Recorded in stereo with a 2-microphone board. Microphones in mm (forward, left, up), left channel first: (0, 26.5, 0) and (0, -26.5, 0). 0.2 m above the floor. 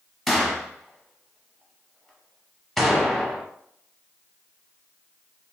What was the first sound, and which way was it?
A gunshot, 5° left (ahead or behind).